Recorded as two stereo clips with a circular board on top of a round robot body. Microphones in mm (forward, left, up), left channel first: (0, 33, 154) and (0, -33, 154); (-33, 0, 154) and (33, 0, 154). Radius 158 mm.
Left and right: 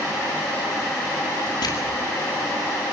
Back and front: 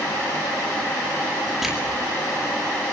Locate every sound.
1.6 s crushing: 85° left, 9.5 m